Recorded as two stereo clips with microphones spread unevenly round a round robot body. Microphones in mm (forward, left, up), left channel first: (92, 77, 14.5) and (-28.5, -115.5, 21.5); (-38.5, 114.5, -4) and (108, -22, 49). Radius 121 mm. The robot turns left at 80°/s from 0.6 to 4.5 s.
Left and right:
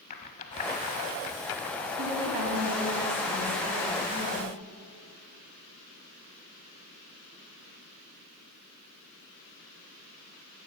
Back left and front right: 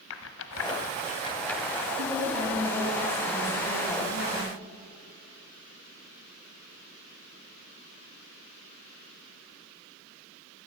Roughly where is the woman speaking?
Right.